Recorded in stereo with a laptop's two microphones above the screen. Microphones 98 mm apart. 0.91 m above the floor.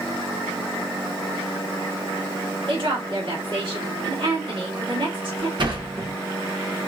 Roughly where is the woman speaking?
Right.